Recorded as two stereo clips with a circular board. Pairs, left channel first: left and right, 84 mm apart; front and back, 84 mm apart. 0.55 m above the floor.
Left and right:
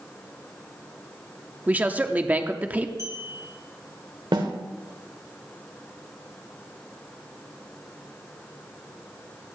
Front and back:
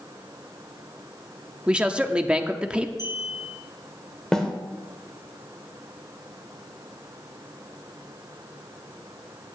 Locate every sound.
1.7 s a man speaking: 130° right, 0.7 m
3.0 s a clink: 40° right, 5 m
4.3 s a snare drum: 85° right, 1.5 m